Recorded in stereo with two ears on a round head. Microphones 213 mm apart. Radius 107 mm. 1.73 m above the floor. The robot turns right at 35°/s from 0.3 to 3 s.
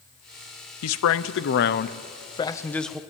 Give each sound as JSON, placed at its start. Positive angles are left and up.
{"t": 0.8, "sound": "a man speaking", "azimuth_deg": 105, "distance_m": 0.9}